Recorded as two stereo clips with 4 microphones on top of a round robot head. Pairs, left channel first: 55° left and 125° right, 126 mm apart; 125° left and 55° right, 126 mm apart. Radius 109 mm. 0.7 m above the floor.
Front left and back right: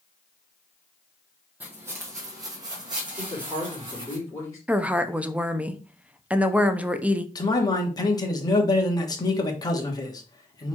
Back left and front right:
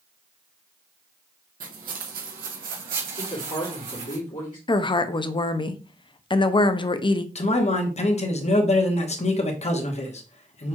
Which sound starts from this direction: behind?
A woman speaking, at 4.7 s.